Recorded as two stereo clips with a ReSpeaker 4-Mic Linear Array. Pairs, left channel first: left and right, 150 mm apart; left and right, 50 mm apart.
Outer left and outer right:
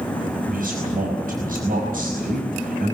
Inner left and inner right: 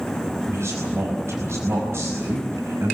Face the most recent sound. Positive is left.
turn(degrees=-75)  # may be behind; listen again after turning